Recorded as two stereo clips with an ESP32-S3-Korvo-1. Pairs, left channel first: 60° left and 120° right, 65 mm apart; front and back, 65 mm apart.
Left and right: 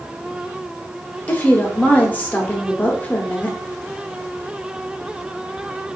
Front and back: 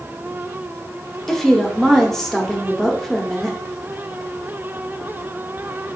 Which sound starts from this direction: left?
A woman speaking, at 1.3 s.